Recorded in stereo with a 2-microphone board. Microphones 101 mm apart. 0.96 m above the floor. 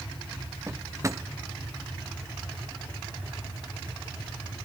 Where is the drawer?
30° right (ahead or behind), 0.5 m.